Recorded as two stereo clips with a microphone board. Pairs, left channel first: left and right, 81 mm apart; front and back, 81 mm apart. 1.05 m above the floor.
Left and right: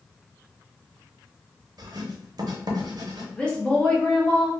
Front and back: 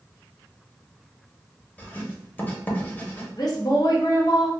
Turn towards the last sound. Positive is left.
turn(degrees=15)